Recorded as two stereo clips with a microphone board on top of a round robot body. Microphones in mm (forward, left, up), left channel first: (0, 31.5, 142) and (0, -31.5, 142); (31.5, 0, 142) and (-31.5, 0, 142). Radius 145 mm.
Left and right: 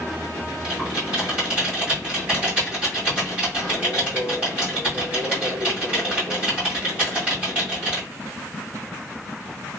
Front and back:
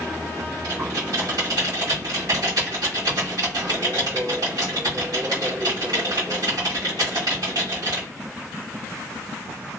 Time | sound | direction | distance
0.6 | typing on a keyboard | 155° right | 1.6 m